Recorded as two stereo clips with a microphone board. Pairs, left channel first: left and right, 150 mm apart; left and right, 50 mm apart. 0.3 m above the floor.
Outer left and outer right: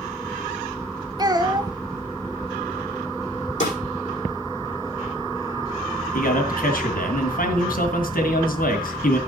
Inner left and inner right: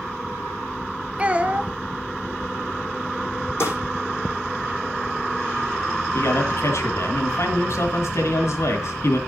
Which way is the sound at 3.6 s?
50° left (ahead or behind).